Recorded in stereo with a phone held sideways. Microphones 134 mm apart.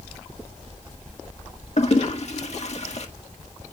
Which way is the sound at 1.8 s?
55° left (ahead or behind).